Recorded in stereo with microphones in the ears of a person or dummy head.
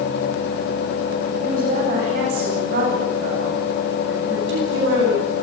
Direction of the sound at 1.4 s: 50° right (ahead or behind).